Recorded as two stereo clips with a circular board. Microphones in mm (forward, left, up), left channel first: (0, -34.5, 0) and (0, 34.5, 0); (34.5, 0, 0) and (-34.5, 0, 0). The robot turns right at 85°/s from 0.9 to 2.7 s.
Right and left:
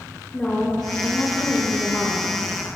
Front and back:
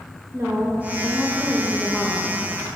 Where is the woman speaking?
155° right, 0.7 m; by 2.4 s 30° right, 0.7 m.